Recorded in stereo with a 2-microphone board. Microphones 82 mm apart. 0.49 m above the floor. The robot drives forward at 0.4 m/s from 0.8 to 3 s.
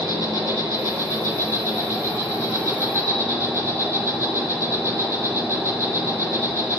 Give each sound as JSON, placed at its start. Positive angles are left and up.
{"t": 0.0, "sound": "an insect", "side_deg": -50, "distance_m": 1.9}